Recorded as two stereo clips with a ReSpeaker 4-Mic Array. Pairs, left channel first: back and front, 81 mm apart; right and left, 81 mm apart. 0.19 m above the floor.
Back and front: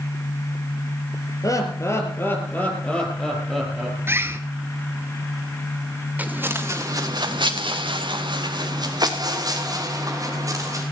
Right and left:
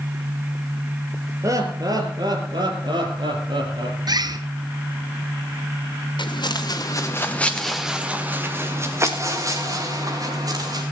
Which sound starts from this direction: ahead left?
A bird, at 4.1 s.